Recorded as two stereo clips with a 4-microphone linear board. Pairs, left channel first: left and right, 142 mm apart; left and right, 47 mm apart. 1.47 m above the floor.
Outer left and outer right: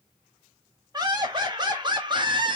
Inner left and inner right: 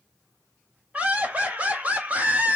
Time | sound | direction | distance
0.9 | laughter | 30° right (ahead or behind) | 1.9 m